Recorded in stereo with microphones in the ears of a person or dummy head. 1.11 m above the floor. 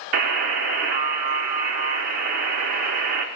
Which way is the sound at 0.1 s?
45° right (ahead or behind).